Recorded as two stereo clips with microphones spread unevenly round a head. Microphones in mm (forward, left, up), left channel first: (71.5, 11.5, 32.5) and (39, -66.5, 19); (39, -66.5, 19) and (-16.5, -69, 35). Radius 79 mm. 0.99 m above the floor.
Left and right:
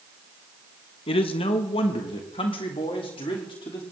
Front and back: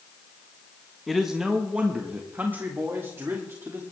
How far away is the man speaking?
About 1.2 m.